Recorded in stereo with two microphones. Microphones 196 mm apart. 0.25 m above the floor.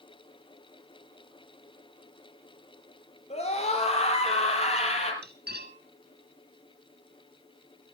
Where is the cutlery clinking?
60° right (ahead or behind), 1.8 m.